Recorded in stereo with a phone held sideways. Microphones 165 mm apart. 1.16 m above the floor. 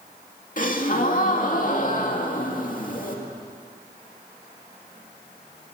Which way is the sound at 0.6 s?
55° left (ahead or behind).